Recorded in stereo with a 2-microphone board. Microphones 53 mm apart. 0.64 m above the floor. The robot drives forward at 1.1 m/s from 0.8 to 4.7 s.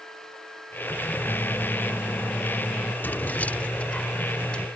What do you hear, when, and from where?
1.3 s a microwave: 70° left (ahead or behind); by 2.9 s 40° left (ahead or behind)
3.0 s keys jangling: 40° left (ahead or behind); by 4.7 s 15° left (ahead or behind)